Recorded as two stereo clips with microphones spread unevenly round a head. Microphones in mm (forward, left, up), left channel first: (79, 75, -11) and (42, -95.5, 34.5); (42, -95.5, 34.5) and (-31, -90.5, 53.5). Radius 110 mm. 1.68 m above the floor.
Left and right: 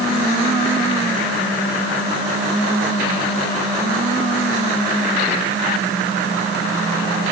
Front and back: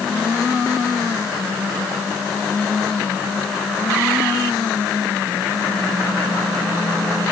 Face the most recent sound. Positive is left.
No sound to turn to.